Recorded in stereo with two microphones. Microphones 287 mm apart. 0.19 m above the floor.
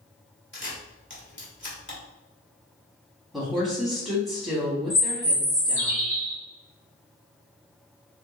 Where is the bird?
25° right (ahead or behind), 1.9 m.